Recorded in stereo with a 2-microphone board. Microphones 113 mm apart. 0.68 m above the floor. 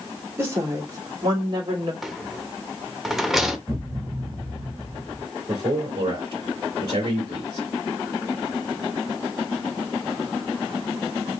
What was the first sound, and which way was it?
A woman speaking, 25° right (ahead or behind).